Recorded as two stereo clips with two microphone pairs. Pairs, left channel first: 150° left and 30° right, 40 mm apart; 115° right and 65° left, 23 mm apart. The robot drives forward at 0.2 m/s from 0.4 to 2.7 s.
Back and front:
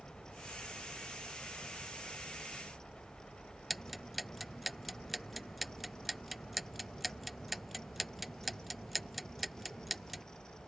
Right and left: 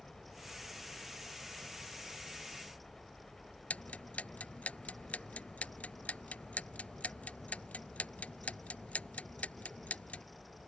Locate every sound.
0.0 s a helicopter: 155° right
3.7 s ticking: 115° right